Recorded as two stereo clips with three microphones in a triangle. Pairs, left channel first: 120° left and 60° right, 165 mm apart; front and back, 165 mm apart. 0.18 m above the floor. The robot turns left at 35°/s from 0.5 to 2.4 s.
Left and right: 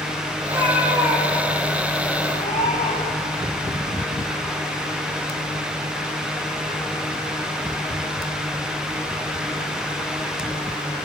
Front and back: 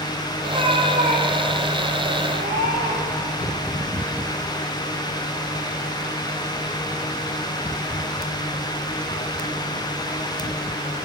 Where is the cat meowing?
115° right, 8 m; by 3.3 s 175° left, 8 m.